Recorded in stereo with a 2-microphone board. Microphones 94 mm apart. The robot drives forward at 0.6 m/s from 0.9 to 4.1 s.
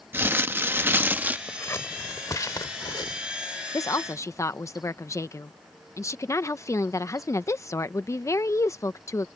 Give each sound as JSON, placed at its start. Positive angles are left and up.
{"t": 0.1, "sound": "crumpling", "side_deg": -25}
{"t": 1.5, "sound": "scissors", "side_deg": 25}
{"t": 3.7, "sound": "a woman speaking", "side_deg": 40}